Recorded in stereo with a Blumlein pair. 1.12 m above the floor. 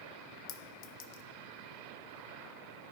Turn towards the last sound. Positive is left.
turn(degrees=45)